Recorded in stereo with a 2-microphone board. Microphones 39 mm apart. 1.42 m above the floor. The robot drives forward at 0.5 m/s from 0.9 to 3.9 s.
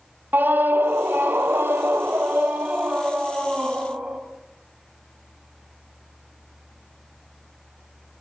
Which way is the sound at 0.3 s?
60° right (ahead or behind).